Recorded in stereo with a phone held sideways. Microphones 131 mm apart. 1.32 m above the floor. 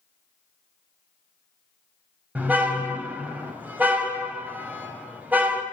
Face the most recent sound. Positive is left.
turn(degrees=-15)  # may be behind; listen again after turning